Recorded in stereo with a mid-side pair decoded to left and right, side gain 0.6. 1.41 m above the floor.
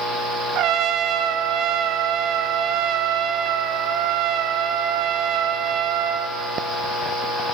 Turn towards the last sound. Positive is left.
turn(degrees=-65)